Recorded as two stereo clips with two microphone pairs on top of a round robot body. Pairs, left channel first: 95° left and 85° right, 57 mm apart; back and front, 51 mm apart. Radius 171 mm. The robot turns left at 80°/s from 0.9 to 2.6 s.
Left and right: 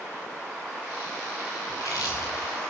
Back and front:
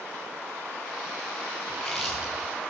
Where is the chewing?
125° left, 9.5 m; by 2.7 s 50° left, 9.5 m.